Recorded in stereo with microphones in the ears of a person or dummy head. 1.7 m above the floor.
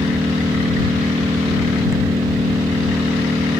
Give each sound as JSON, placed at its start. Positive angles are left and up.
{"t": 0.0, "sound": "an engine running", "side_deg": -15}